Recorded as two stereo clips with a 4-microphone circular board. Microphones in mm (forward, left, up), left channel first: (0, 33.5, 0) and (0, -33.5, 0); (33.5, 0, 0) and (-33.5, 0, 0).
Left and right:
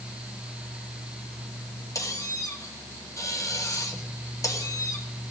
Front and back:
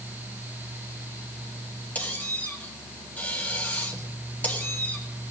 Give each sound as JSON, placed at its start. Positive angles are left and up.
{"t": 1.9, "sound": "a squeak", "azimuth_deg": 60, "distance_m": 1.9}